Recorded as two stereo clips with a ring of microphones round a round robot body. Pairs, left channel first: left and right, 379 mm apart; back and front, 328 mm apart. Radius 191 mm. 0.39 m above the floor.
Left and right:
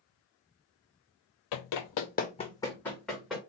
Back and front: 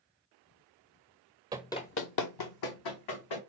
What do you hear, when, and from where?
1.5 s running footsteps: 75° left, 0.5 m; by 3.4 s straight behind, 1.6 m